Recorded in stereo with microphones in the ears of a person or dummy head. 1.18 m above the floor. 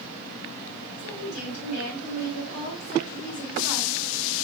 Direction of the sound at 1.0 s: 75° left (ahead or behind).